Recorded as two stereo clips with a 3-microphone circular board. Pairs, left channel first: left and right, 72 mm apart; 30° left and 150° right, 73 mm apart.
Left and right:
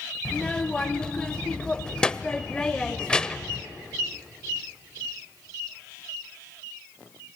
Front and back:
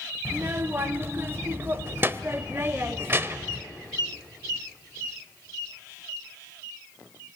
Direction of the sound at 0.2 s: 165° left.